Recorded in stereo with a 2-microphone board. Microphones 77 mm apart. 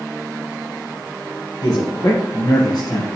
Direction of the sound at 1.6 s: 50° left (ahead or behind).